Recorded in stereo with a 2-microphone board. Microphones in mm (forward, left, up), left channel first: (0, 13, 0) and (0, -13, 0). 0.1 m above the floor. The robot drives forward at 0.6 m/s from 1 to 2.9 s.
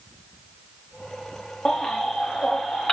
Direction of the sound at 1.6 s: 35° left (ahead or behind).